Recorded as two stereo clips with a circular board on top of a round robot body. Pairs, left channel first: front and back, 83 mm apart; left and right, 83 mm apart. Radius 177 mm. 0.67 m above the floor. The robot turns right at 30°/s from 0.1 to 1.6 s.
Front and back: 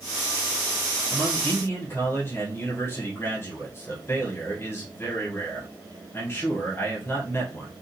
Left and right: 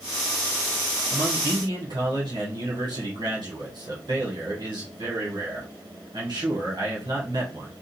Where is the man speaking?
75° right, 1.8 m; by 7.7 s 60° right, 1.8 m.